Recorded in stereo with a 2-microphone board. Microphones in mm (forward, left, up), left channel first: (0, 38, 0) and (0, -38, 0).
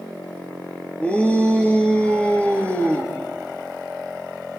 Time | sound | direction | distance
1.0 | a shout | 15° left (ahead or behind) | 4.5 m